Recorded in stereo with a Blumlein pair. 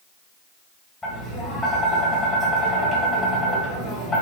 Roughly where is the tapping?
Ahead.